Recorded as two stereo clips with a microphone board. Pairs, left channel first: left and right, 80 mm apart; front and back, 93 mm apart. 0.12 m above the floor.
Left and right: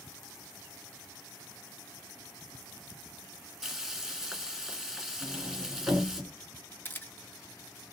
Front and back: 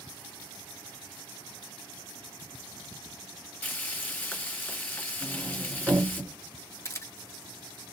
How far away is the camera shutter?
About 0.5 m.